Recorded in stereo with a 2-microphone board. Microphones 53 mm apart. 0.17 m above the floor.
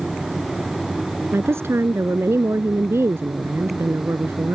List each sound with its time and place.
1.3 s a woman speaking: 55° right (ahead or behind)